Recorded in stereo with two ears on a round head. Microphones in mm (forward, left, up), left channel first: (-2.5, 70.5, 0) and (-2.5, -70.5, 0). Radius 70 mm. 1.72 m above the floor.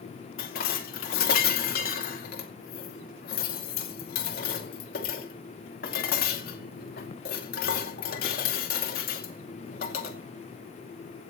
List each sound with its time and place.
0.4 s dishes clattering: 65° left (ahead or behind), 2.5 m